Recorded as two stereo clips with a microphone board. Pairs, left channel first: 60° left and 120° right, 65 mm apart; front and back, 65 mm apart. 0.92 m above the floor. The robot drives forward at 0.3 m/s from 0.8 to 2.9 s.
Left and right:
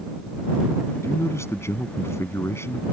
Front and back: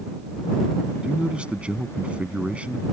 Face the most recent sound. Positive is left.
turn(degrees=110)